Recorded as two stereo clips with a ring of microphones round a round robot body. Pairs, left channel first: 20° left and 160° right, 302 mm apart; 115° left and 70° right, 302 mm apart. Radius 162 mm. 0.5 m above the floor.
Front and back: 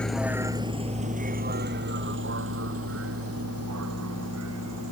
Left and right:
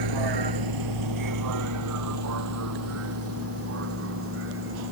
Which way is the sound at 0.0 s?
65° right.